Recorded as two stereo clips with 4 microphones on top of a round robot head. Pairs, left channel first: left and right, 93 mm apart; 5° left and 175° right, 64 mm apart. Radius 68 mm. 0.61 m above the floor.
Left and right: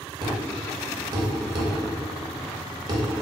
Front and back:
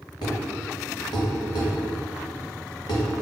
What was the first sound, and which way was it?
A thud, 45° right.